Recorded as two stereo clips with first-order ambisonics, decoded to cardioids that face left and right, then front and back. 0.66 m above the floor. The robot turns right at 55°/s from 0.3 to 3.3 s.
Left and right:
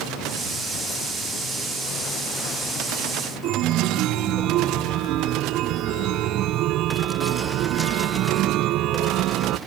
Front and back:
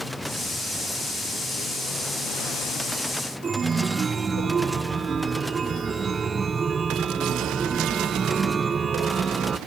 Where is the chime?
115° right.